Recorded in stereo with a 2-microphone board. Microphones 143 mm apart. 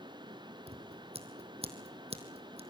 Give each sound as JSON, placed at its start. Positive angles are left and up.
{"t": 0.7, "sound": "scissors", "side_deg": -45, "distance_m": 3.0}